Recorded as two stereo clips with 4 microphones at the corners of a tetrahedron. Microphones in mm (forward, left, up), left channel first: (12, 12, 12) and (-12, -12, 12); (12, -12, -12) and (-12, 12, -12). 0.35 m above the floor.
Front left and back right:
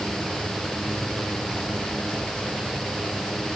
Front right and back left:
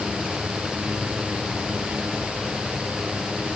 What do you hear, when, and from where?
Only background noise.